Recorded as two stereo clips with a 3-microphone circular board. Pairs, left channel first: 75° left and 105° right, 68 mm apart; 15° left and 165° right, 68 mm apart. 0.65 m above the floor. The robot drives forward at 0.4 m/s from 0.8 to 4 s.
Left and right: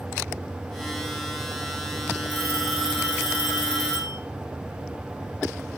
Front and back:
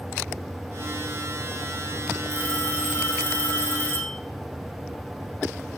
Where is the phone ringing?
40° right, 7 m; by 4.2 s 45° right, 6.5 m.